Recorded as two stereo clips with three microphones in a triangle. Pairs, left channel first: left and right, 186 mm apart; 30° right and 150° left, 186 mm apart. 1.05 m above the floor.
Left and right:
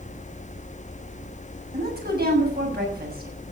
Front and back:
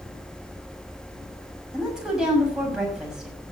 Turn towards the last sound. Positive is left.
turn(degrees=-125)